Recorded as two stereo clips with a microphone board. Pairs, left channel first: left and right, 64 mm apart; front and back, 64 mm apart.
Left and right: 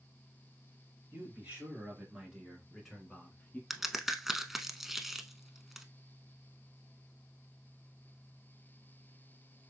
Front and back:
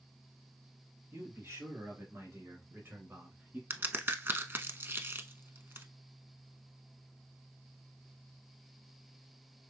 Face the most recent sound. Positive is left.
turn(degrees=-175)